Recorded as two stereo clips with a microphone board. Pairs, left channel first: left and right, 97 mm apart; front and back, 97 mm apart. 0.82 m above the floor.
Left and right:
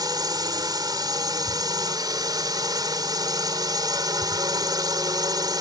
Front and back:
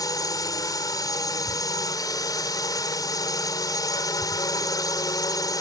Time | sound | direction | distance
0.0 | a drone | 45° right | ?